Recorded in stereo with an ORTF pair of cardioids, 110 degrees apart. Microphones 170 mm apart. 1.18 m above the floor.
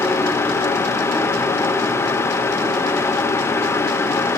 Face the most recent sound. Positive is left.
turn(degrees=15)